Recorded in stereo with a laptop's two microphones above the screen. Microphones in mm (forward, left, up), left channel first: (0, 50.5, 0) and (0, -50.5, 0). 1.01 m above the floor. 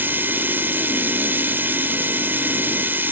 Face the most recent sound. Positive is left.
turn(degrees=-20)  # may be behind; listen again after turning